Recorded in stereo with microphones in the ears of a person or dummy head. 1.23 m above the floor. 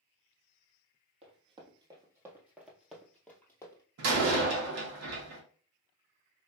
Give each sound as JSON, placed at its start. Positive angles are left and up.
{"t": 1.2, "sound": "running footsteps", "side_deg": -35, "distance_m": 1.9}
{"t": 4.0, "sound": "a door slam", "side_deg": -75, "distance_m": 1.4}